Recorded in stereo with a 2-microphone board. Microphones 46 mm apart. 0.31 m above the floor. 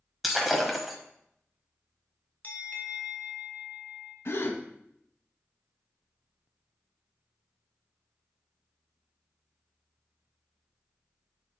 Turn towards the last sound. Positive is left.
turn(degrees=65)  # may be behind; listen again after turning